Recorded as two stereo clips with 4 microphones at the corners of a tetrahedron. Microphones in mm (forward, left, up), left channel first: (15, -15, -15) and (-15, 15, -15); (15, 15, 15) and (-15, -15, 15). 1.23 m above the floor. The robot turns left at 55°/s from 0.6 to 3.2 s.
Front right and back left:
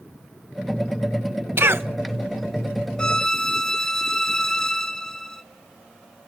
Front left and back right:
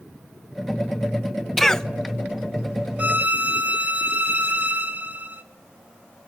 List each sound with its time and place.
1.6 s a cough: 130° left, 1.1 m; by 1.9 s 115° left, 1.1 m
3.0 s a violin: 105° right, 1.2 m; by 5.4 s 115° right, 1.2 m